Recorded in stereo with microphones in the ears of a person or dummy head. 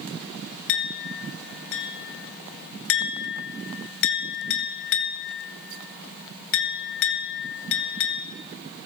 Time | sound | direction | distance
0.7 | a clink | 60° left (ahead or behind) | 0.7 m